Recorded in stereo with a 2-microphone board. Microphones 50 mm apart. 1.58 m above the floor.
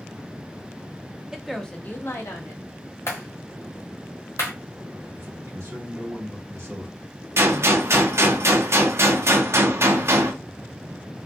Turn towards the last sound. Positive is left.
turn(degrees=-60)  # may be behind; listen again after turning